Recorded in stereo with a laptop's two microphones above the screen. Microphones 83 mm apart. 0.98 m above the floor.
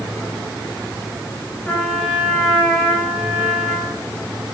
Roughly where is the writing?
No writing in this recording.